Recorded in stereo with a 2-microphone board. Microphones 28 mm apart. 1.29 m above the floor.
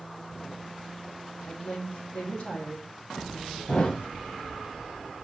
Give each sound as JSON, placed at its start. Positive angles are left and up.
{"t": 1.5, "sound": "a woman speaking", "side_deg": 70, "distance_m": 2.5}
{"t": 3.7, "sound": "a thud", "side_deg": 50, "distance_m": 1.7}